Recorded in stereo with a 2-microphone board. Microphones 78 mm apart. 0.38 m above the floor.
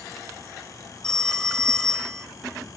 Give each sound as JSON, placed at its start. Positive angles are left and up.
{"t": 1.0, "sound": "a phone ringing", "side_deg": 10, "distance_m": 1.1}